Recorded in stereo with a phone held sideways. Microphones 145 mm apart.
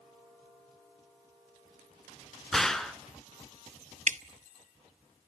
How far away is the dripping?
About 1.0 m.